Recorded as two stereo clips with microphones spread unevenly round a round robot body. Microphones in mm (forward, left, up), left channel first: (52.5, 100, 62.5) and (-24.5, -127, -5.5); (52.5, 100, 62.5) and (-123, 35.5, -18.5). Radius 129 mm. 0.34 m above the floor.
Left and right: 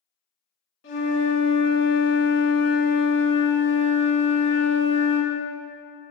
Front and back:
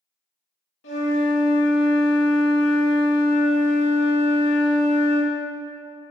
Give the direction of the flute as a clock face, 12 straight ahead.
11 o'clock.